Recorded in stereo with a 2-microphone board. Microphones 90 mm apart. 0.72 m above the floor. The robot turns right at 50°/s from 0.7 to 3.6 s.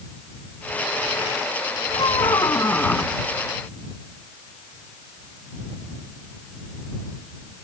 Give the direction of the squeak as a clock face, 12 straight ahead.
8 o'clock.